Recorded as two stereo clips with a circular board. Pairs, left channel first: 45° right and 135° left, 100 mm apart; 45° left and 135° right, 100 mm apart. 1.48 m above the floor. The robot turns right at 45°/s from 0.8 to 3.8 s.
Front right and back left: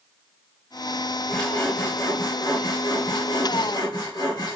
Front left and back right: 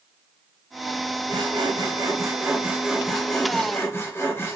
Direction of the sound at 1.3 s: 130° right.